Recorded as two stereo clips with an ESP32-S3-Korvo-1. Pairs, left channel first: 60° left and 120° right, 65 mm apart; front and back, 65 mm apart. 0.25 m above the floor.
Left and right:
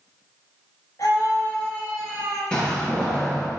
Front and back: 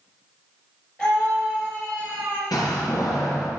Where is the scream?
85° left, 3.5 m; by 2.4 s 70° left, 3 m.